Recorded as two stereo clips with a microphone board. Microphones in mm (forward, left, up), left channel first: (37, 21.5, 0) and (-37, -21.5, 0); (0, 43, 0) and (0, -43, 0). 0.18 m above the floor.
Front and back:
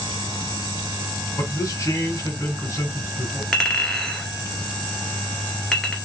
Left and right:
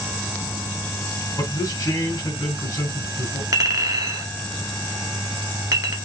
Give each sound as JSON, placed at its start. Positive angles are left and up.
{"t": 1.4, "sound": "a man speaking", "azimuth_deg": 70, "distance_m": 2.0}
{"t": 3.5, "sound": "a clink", "azimuth_deg": -55, "distance_m": 1.5}